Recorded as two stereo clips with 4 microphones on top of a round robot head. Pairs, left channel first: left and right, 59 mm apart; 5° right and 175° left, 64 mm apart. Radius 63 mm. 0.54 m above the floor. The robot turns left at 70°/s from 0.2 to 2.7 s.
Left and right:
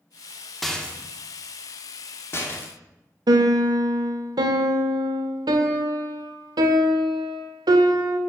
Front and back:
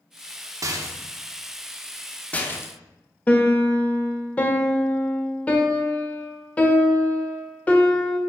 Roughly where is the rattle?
Behind.